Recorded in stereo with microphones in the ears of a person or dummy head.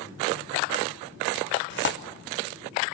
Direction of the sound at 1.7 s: 50° left (ahead or behind).